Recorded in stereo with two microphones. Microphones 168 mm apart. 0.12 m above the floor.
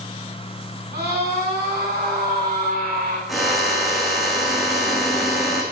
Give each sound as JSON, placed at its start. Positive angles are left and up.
{"t": 0.9, "sound": "a scream", "side_deg": -80, "distance_m": 9.5}
{"t": 3.3, "sound": "a drill", "side_deg": 0, "distance_m": 5.0}